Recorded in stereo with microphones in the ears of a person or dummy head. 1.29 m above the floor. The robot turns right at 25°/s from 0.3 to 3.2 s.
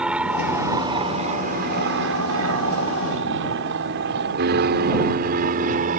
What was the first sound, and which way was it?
An aircraft, 15° right (ahead or behind).